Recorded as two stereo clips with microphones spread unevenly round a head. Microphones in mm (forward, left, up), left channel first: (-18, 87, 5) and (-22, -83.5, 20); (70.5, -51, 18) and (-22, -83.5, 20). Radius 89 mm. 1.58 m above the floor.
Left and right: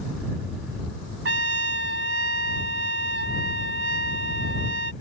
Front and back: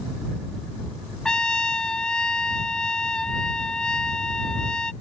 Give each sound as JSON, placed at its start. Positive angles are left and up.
{"t": 1.2, "sound": "a trumpet", "azimuth_deg": -60}